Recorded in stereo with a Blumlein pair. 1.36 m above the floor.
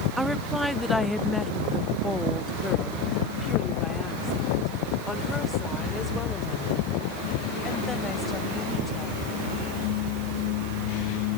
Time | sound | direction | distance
0.2 | a woman speaking | 5° right | ?